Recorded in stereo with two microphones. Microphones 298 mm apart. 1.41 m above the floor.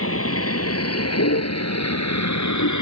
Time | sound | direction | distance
0.0 | a vehicle | 50° left (ahead or behind) | ?